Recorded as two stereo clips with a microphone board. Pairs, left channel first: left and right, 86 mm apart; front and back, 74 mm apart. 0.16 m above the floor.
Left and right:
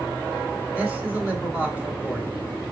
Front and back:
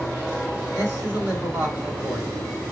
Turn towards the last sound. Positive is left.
turn(degrees=-155)